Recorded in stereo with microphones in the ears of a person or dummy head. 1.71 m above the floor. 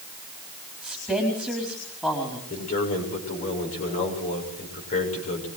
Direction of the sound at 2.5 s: 45° left (ahead or behind).